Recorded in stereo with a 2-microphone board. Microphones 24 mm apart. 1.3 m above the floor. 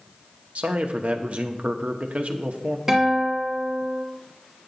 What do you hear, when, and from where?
0.6 s a man speaking: 60° right (ahead or behind), 0.9 m
2.9 s a guitar: 15° right (ahead or behind), 2 m